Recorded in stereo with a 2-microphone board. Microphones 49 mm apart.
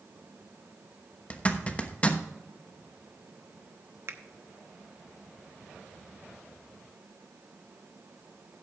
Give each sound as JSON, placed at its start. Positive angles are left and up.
{"t": 1.3, "sound": "a zipper", "side_deg": 25, "distance_m": 1.0}
{"t": 4.1, "sound": "a finger snap", "side_deg": -60, "distance_m": 0.9}